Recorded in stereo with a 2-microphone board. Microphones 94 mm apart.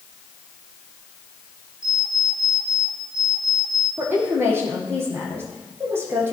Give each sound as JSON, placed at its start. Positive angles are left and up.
{"t": 1.8, "sound": "an alarm clock", "side_deg": -60, "distance_m": 7.5}
{"t": 4.0, "sound": "a woman speaking", "side_deg": -25, "distance_m": 6.0}